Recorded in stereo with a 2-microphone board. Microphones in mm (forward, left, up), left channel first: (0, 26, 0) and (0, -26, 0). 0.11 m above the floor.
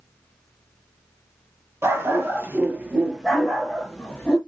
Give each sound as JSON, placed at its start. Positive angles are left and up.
{"t": 1.8, "sound": "a dog barking", "side_deg": -60, "distance_m": 1.2}